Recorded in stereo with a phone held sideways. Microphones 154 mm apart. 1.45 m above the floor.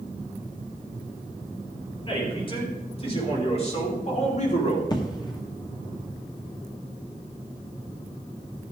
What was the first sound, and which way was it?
A man speaking, 35° left (ahead or behind).